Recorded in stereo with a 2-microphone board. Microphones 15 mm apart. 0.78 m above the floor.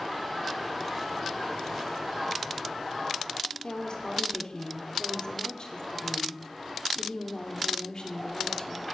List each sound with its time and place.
3.6 s a woman speaking: 55° left (ahead or behind), 2.5 m